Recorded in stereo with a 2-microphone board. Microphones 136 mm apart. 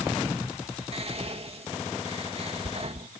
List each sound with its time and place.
0.9 s whispering: 50° right (ahead or behind)